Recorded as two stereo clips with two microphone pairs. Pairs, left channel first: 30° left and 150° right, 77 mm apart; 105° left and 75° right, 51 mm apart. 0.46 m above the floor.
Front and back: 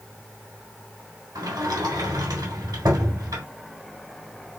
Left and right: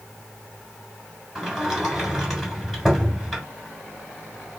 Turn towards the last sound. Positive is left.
turn(degrees=-165)